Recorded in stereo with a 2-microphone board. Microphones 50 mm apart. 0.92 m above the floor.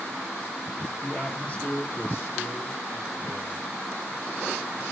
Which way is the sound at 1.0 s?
20° left (ahead or behind).